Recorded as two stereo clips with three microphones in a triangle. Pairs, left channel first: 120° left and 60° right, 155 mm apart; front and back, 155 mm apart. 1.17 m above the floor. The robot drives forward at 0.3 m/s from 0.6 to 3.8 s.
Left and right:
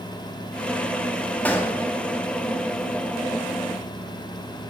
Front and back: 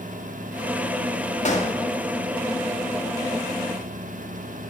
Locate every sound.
1.4 s a gunshot: 40° left, 2.5 m